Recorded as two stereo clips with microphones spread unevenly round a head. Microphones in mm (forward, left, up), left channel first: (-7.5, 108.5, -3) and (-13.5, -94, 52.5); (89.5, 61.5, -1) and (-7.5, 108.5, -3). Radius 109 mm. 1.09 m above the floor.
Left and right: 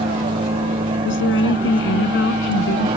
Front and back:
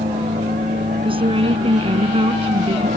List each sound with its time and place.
0.0 s a vehicle: 160° right
1.1 s a woman speaking: 120° left